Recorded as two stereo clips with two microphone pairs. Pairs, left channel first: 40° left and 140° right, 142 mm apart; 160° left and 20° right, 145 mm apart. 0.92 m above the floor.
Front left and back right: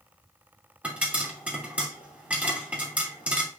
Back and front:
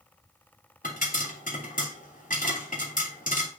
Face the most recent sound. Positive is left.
turn(degrees=140)